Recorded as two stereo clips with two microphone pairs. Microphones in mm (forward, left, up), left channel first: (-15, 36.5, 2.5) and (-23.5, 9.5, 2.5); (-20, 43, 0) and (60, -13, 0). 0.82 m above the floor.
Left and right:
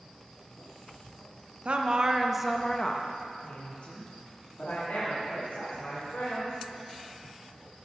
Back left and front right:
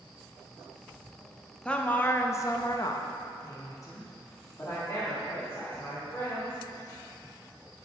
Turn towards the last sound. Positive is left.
turn(degrees=80)